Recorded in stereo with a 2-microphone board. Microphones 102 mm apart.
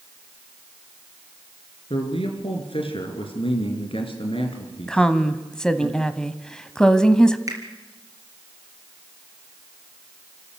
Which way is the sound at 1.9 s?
65° left (ahead or behind).